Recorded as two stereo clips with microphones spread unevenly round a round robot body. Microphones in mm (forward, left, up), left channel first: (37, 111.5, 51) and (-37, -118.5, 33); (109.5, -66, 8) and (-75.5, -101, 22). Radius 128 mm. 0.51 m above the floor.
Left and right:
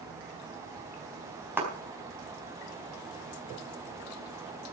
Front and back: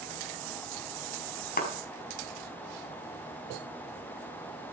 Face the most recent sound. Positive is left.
turn(degrees=-25)